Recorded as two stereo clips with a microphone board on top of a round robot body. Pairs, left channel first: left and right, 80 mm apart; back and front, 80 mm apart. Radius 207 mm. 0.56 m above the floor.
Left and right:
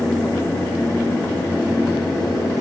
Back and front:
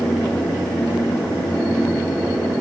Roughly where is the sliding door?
I don't hear a sliding door.